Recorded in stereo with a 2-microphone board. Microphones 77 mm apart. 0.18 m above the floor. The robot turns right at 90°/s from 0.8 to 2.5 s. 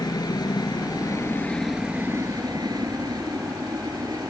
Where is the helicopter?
60° left (ahead or behind); by 4.3 s 60° right (ahead or behind).